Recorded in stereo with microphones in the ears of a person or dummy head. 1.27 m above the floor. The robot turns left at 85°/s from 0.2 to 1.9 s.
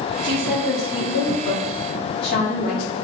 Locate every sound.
0.2 s a woman speaking: 25° right (ahead or behind), 1.2 m; by 2.9 s 60° left (ahead or behind), 1.2 m